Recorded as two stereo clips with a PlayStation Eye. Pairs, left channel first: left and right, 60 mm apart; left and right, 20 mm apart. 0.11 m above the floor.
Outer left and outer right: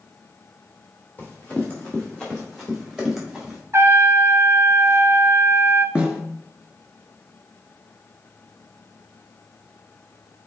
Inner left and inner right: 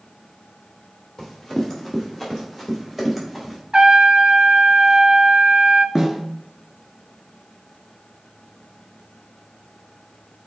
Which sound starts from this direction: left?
Running footsteps, at 1.2 s.